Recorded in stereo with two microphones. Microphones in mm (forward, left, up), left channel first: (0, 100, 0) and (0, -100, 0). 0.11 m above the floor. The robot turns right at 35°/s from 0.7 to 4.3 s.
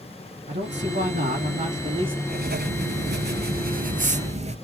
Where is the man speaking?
80° right, 3 m; by 2.2 s 25° right, 3 m.